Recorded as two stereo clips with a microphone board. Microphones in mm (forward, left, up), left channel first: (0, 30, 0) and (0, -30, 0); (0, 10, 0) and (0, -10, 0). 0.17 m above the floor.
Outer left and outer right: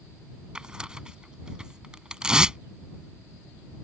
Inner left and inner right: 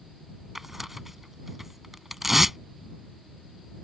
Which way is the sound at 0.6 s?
15° right (ahead or behind).